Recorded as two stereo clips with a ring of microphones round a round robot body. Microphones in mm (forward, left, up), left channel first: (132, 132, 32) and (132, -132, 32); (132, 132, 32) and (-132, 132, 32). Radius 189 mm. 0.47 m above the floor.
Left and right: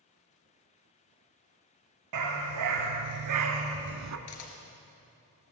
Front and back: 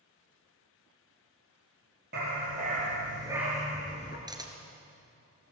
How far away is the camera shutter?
About 2.5 m.